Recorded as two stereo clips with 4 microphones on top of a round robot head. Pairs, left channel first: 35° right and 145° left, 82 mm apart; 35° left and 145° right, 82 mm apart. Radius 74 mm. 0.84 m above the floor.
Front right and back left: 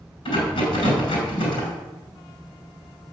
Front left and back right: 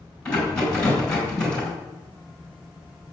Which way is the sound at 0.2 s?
45° right.